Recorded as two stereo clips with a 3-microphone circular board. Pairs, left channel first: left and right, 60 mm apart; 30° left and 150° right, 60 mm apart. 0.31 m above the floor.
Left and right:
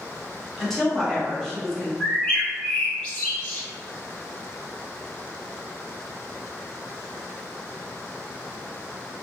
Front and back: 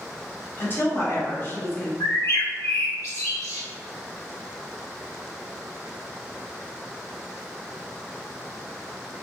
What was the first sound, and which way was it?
A woman speaking, 10° left.